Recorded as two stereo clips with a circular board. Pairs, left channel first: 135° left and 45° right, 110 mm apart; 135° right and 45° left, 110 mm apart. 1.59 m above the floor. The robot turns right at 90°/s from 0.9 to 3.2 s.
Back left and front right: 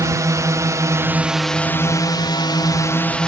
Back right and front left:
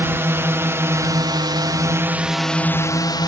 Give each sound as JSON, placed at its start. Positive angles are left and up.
{"t": 0.0, "sound": "a drone", "azimuth_deg": -10}